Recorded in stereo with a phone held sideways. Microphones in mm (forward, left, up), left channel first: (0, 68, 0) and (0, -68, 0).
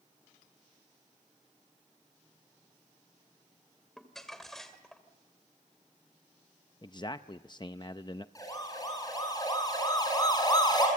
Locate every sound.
4.0 s crumpling: centre (ahead or behind), 2 m
6.8 s a man speaking: 30° left (ahead or behind), 0.5 m
8.3 s a siren: 25° left (ahead or behind), 8.5 m; by 10.9 s 30° left (ahead or behind), 7.5 m